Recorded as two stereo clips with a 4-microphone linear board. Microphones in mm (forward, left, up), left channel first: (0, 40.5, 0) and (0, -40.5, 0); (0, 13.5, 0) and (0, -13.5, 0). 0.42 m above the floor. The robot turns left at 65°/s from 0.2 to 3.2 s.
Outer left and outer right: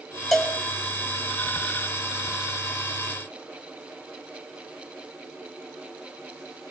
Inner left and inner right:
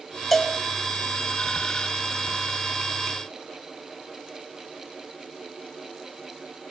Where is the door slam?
No door slam in this recording.